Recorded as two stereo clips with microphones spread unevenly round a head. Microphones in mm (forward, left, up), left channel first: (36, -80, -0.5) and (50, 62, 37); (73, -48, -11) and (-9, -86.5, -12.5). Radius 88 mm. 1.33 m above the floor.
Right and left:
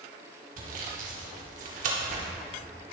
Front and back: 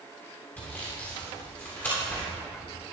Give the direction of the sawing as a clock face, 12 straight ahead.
9 o'clock.